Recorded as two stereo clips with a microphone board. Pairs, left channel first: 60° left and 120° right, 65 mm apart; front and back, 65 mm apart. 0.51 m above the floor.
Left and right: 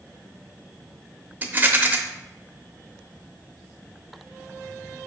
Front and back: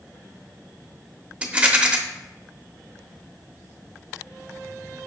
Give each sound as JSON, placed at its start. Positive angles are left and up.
{"t": 1.4, "sound": "a rattle", "azimuth_deg": -130, "distance_m": 0.8}